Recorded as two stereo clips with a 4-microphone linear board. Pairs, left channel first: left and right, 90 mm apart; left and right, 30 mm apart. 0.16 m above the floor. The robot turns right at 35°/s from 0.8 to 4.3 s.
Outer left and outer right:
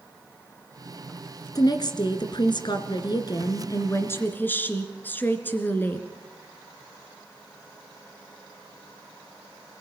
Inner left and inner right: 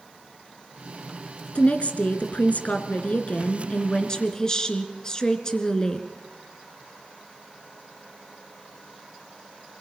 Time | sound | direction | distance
1.6 | a woman speaking | 60° left | 2.5 m